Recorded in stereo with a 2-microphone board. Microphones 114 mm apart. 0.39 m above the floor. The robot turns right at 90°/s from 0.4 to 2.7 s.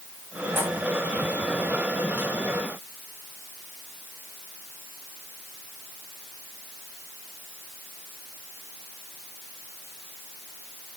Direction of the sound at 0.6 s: 15° right (ahead or behind).